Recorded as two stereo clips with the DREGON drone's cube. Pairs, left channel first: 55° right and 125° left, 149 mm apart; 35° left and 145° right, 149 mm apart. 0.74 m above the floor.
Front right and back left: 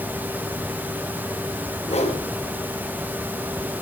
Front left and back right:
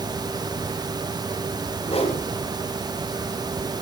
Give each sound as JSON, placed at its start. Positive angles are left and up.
{"t": 1.9, "sound": "a whoosh", "azimuth_deg": -15, "distance_m": 5.0}